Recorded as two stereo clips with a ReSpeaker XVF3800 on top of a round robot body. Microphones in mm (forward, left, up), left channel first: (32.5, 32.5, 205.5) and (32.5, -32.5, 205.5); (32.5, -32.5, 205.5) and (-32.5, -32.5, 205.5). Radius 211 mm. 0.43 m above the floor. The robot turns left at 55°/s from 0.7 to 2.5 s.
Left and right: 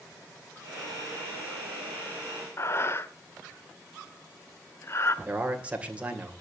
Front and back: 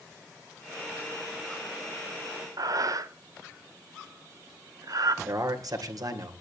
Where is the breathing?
145° left, 0.7 m.